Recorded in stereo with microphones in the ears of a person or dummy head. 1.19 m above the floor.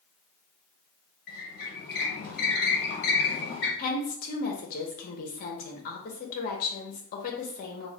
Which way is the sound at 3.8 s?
50° left (ahead or behind).